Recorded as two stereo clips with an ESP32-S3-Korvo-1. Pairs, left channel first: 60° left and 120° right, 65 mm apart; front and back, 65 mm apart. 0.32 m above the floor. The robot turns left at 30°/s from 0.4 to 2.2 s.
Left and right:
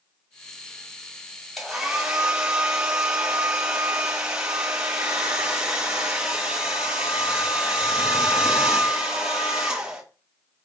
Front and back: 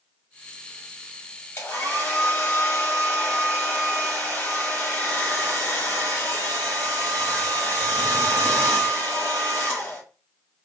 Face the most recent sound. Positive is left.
turn(degrees=-55)